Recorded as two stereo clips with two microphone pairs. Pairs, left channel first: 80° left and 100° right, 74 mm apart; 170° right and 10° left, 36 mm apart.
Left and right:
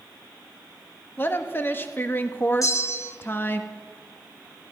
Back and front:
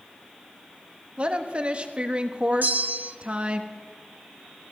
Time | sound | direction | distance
1.2 | a woman speaking | 35° left | 1.1 m
2.6 | a bell | 35° left | 0.9 m